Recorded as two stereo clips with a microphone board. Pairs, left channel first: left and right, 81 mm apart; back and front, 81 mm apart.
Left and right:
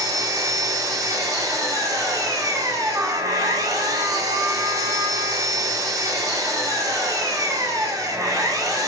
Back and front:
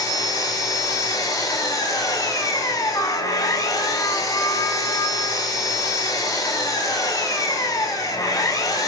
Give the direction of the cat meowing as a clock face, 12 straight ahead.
I don't hear a cat meowing.